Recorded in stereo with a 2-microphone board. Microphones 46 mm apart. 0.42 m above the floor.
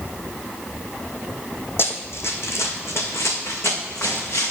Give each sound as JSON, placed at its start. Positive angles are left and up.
{"t": 1.8, "sound": "running footsteps", "side_deg": 55, "distance_m": 0.9}